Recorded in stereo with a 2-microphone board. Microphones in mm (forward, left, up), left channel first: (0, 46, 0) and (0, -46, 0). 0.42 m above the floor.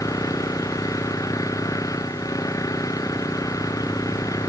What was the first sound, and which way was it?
An engine running, 40° left (ahead or behind).